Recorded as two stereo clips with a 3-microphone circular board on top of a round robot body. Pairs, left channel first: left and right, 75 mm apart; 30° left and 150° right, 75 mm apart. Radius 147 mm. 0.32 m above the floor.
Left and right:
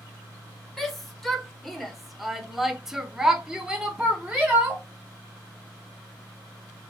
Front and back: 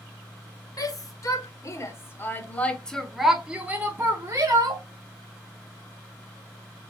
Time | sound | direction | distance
0.8 | a shout | straight ahead | 1.6 m